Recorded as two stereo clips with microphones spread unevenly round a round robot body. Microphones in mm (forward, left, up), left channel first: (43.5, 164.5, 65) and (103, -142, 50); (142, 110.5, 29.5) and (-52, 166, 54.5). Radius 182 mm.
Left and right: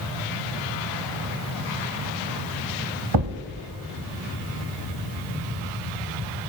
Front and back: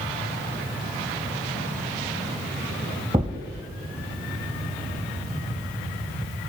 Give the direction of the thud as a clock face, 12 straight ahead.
4 o'clock.